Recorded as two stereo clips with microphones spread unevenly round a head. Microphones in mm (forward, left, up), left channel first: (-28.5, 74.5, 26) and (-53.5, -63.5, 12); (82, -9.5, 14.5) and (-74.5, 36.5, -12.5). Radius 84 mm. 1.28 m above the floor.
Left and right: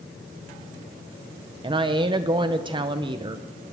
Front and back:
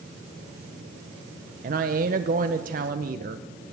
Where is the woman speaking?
155° right, 0.8 m.